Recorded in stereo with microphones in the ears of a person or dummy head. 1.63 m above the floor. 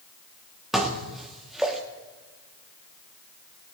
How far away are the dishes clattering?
About 1.8 m.